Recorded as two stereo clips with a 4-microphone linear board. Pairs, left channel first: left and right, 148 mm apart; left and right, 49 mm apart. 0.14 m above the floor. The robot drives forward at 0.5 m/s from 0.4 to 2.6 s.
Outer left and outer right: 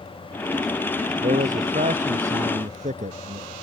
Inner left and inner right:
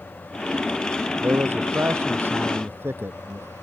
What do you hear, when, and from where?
1.2 s a man speaking: 60° right (ahead or behind); by 3.5 s 55° right (ahead or behind)